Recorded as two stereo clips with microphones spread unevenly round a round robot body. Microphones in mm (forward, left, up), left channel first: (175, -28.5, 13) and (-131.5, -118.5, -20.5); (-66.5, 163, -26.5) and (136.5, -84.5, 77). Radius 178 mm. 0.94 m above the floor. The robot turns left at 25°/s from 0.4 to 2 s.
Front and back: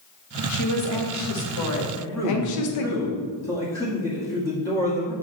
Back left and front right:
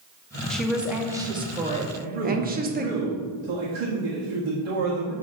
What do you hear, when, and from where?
0.5 s a woman speaking: 65° left, 1.0 m; by 2.9 s 25° left, 1.0 m
1.9 s a man speaking: 60° right, 1.6 m; by 5.1 s 65° right, 1.6 m